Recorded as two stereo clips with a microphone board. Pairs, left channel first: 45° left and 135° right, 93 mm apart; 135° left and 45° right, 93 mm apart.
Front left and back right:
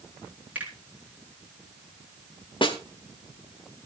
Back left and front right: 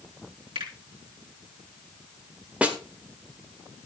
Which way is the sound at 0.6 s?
65° right.